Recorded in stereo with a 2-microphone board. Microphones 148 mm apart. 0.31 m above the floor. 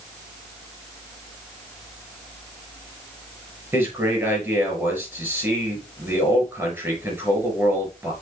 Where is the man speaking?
15° right (ahead or behind), 5 m.